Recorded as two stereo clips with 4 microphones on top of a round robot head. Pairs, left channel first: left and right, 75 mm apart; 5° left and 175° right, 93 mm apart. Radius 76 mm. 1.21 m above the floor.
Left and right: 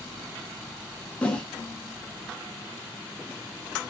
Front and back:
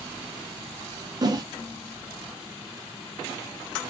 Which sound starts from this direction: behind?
A whoosh, at 1.2 s.